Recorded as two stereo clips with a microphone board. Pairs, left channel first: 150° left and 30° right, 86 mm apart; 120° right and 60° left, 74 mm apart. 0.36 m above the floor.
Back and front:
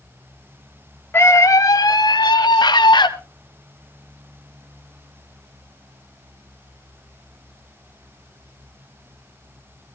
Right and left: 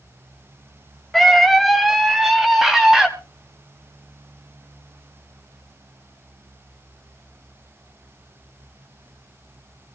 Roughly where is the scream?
Behind left.